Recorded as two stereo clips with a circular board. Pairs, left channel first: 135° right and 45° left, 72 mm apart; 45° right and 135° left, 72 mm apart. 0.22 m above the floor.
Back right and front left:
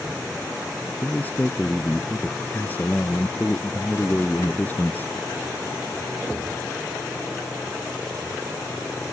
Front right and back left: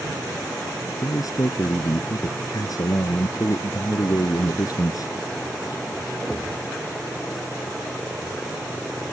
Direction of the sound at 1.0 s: 70° right.